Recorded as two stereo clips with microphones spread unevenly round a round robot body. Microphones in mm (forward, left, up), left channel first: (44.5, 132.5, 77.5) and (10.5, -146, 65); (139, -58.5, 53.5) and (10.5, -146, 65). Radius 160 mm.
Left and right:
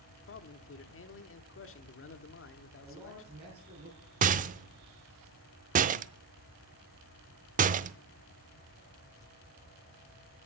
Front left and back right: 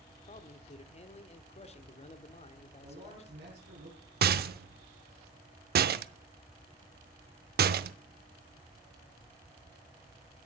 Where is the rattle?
160° right, 0.6 m.